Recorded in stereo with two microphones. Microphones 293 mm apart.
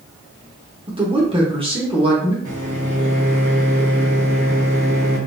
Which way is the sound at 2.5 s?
60° right (ahead or behind).